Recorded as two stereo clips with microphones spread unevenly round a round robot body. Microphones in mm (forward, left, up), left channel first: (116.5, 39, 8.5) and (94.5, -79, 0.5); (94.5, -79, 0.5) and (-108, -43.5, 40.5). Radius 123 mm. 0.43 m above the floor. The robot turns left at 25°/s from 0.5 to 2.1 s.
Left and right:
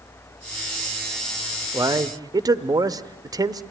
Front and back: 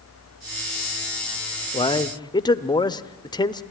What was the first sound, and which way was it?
A man speaking, 50° right.